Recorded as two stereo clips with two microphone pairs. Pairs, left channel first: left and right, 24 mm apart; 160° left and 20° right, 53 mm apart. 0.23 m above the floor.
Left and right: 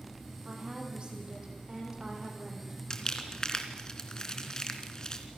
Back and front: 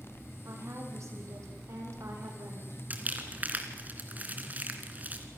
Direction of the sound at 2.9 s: 35° left.